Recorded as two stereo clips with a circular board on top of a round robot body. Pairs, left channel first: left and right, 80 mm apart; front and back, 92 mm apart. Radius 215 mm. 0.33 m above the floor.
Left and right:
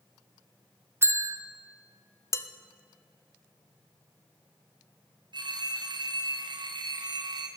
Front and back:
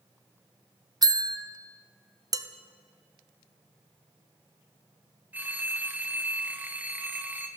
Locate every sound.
1.0 s a bell: 145° right, 1.2 m
2.3 s dishes clattering: 135° left, 1.0 m
5.3 s a phone ringing: 110° right, 1.6 m